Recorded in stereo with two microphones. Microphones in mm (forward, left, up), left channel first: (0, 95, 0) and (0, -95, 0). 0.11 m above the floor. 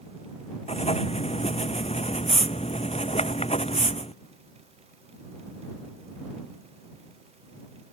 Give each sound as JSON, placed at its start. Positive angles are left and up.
{"t": 0.7, "sound": "writing", "side_deg": 30}